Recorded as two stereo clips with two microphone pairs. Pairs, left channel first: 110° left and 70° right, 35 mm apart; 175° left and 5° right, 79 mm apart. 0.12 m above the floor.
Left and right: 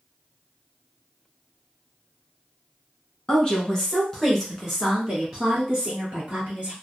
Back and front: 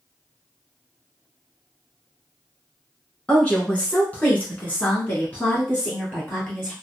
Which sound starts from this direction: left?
A woman speaking, at 3.3 s.